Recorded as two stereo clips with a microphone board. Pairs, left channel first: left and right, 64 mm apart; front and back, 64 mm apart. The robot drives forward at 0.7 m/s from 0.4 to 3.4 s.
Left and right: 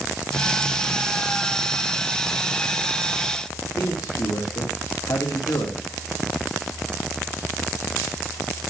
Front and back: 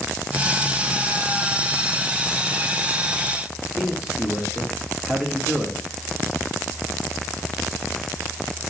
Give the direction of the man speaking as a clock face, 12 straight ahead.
9 o'clock.